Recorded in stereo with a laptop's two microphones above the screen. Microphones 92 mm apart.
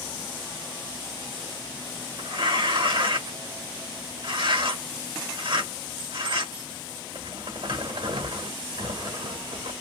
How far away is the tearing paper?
About 1.7 m.